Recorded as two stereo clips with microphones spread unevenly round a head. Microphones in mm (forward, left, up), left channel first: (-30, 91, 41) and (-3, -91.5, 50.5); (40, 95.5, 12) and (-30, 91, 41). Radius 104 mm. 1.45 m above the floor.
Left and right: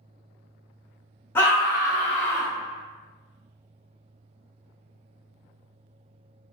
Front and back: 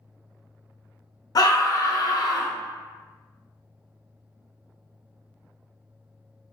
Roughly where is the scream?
Ahead.